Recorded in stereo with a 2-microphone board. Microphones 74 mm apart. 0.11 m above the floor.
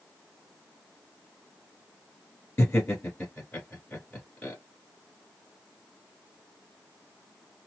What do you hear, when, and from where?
2.6 s laughter: 20° left (ahead or behind), 1.7 m